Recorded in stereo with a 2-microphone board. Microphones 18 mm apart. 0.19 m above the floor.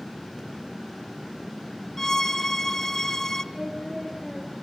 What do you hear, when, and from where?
2.0 s a violin: 25° left (ahead or behind), 1.1 m
3.5 s singing: 25° right (ahead or behind), 7 m